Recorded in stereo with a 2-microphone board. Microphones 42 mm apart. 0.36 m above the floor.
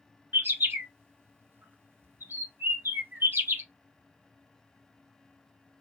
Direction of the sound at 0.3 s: 65° right (ahead or behind).